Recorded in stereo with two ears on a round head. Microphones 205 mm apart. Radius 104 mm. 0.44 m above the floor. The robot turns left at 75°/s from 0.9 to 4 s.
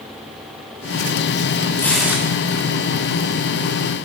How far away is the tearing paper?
About 3 m.